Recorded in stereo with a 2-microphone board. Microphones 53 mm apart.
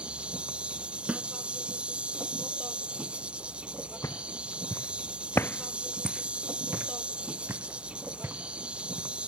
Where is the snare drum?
25° right (ahead or behind).